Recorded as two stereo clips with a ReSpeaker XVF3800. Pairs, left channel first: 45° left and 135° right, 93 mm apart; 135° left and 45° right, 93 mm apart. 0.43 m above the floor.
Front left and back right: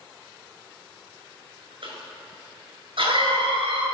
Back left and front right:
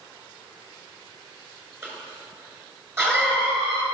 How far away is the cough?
About 5.5 m.